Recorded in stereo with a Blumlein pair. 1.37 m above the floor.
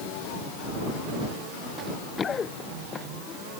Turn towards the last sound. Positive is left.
turn(degrees=25)